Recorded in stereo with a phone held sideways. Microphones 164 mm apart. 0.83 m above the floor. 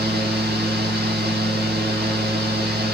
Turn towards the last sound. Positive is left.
turn(degrees=-85)